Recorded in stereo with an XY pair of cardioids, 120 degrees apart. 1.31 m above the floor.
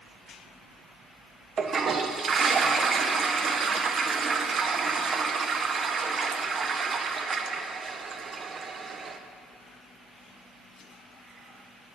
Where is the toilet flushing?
40° right, 0.5 m.